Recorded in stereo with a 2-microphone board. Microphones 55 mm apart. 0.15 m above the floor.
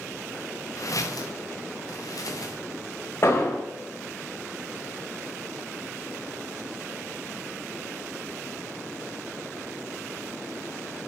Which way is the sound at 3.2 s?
50° left (ahead or behind).